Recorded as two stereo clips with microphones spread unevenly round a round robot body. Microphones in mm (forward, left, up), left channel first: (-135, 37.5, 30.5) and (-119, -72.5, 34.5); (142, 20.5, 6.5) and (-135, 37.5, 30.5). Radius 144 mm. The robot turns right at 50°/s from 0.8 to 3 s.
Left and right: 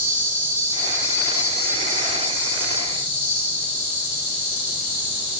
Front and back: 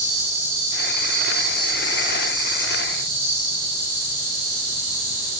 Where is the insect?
30° right, 1.9 m; by 5.4 s 80° left, 1.9 m.